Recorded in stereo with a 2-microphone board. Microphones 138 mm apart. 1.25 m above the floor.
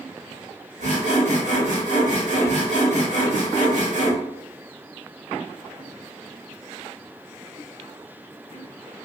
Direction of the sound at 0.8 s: 60° right (ahead or behind).